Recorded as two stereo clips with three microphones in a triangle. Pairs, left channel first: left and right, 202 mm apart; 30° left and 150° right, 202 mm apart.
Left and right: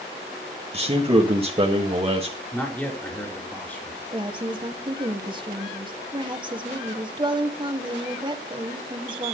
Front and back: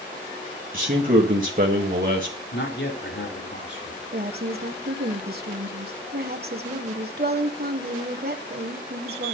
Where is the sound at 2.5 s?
10° left, 4.5 m.